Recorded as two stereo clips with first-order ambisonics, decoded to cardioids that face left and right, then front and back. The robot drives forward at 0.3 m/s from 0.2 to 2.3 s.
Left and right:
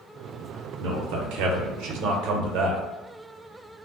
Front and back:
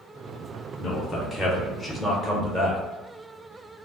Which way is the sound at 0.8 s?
65° right.